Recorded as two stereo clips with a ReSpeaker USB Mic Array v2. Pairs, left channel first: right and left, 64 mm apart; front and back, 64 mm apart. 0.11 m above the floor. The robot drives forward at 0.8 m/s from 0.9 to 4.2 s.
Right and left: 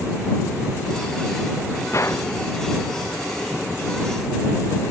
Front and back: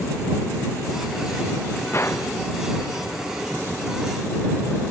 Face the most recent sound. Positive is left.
turn(degrees=-80)